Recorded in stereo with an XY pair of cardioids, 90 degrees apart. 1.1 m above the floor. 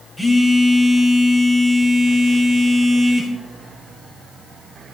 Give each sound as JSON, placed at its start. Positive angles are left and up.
{"t": 0.2, "sound": "a phone buzzing", "azimuth_deg": 25, "distance_m": 7.5}